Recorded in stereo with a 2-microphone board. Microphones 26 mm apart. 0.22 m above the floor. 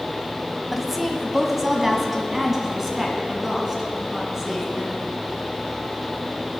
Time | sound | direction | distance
0.7 | a woman speaking | centre (ahead or behind) | 1.3 m